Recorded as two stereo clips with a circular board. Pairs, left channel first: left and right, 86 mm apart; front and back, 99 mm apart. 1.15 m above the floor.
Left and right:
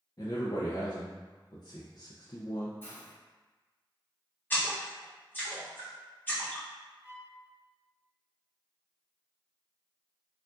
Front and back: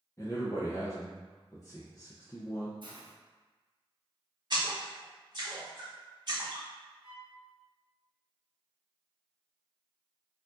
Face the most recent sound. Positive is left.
turn(degrees=180)